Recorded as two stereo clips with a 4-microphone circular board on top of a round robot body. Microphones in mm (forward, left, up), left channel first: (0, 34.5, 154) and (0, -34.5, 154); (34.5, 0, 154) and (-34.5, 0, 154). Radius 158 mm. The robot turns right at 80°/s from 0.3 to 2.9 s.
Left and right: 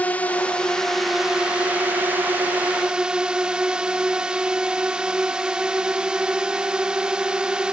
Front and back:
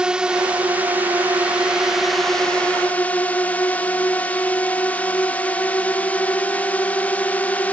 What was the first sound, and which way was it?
A drone, 120° left.